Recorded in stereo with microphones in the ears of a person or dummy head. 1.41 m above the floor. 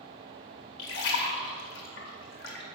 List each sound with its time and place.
0.8 s a splash: 65° left (ahead or behind), 1.9 m